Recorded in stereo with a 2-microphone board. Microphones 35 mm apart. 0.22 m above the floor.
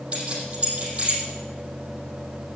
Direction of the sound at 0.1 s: 35° right (ahead or behind).